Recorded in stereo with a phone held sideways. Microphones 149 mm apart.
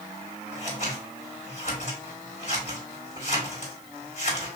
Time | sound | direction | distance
0.5 | scissors | 50° left (ahead or behind) | 2.5 m